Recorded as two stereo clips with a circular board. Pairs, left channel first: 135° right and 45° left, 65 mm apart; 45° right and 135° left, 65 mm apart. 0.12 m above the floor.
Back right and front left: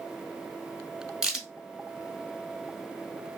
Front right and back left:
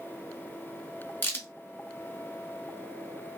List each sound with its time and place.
1.2 s a crack: 25° right, 1.0 m